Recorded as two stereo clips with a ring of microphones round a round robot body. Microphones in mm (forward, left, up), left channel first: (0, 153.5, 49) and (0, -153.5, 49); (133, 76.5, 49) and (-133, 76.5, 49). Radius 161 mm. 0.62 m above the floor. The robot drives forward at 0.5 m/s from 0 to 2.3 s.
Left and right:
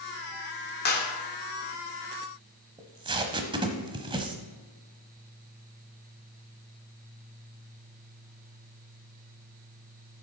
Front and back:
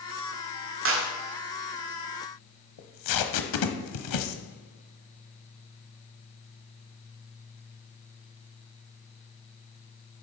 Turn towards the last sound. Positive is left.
turn(degrees=-15)